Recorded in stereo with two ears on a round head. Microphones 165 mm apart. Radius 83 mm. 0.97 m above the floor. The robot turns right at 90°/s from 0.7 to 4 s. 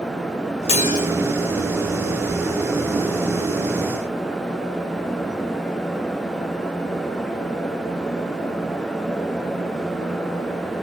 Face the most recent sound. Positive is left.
turn(degrees=-30)